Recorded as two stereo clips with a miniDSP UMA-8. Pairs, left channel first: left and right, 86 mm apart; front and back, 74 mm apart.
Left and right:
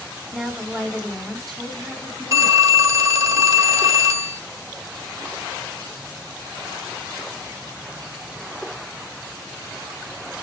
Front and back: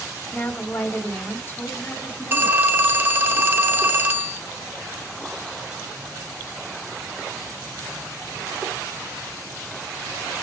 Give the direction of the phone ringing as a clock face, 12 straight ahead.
4 o'clock.